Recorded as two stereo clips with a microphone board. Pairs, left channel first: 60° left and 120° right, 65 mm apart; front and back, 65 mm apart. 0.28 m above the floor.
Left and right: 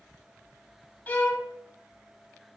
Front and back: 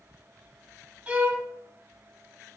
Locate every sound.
1.1 s a violin: 115° left, 0.6 m